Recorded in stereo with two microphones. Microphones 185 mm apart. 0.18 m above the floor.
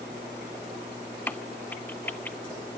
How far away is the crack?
About 0.7 m.